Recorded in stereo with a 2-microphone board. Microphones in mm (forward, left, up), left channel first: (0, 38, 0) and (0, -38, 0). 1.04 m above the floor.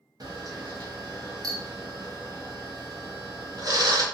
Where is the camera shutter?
55° right (ahead or behind), 0.6 m.